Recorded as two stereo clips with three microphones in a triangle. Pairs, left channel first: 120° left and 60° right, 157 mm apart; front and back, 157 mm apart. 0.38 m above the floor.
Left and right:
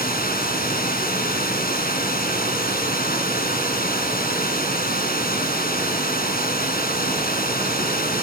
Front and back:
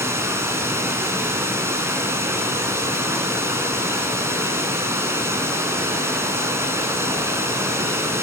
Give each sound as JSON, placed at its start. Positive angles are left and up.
{"t": 0.0, "sound": "running water", "azimuth_deg": 105, "distance_m": 4.0}